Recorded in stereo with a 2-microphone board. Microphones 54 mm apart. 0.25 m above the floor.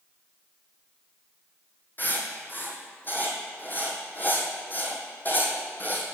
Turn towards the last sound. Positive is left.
turn(degrees=35)  # may be behind; listen again after turning